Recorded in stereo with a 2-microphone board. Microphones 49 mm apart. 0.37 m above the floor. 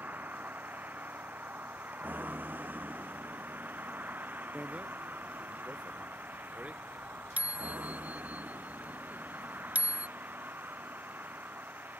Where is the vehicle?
35° right (ahead or behind); by 12.0 s 40° right (ahead or behind).